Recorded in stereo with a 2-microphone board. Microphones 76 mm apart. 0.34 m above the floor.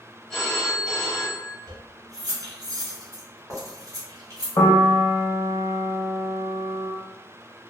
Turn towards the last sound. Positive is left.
turn(degrees=55)  # may be behind; listen again after turning